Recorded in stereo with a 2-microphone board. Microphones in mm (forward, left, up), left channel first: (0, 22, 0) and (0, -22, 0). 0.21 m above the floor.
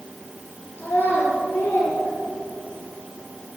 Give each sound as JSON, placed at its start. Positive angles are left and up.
{"t": 0.8, "sound": "a child speaking", "side_deg": 40, "distance_m": 3.0}